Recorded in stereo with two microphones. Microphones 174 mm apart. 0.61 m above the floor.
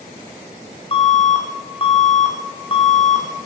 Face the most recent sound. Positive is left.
turn(degrees=35)  # may be behind; listen again after turning